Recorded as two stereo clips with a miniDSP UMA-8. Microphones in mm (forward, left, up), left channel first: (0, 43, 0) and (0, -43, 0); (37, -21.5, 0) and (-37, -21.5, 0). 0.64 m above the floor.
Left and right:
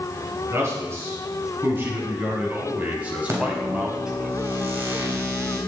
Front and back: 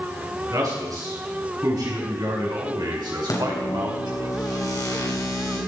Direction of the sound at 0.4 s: 145° right.